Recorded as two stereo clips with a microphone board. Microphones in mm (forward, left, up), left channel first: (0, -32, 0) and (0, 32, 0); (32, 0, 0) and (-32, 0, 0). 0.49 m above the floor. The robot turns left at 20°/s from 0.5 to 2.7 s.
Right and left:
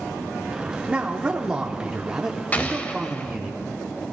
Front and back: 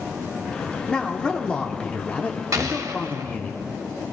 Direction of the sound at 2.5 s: 155° right.